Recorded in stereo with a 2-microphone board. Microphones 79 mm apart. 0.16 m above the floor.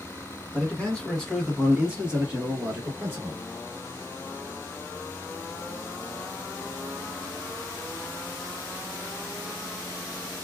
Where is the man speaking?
20° left (ahead or behind), 1.4 m; by 3.4 s 25° right (ahead or behind), 1.8 m.